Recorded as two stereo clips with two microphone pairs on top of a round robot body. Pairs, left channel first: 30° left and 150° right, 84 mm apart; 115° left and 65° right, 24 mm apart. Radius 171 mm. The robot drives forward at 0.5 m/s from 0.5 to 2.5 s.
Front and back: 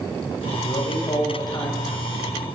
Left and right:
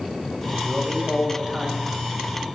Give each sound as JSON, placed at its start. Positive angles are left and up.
{"t": 0.6, "sound": "a man speaking", "azimuth_deg": 0, "distance_m": 5.0}